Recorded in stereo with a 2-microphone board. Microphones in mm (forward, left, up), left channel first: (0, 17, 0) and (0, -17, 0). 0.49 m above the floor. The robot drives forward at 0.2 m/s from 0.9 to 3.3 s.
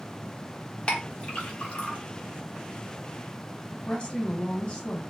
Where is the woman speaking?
35° left (ahead or behind), 0.9 m.